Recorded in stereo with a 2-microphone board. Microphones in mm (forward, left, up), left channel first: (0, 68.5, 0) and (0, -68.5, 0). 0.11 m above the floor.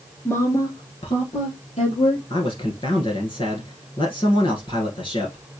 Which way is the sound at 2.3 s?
40° left (ahead or behind).